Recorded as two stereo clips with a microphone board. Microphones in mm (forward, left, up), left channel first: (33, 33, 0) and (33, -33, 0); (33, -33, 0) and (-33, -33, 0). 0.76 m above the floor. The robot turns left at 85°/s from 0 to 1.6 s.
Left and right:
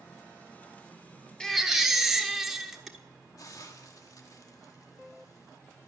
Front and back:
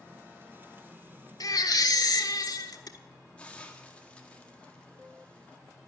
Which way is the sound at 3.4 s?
65° left.